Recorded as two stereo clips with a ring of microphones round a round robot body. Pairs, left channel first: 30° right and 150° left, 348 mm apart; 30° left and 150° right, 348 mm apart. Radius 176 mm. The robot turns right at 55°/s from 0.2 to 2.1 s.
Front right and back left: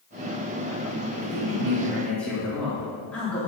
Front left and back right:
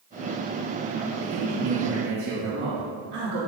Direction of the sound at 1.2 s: 165° right.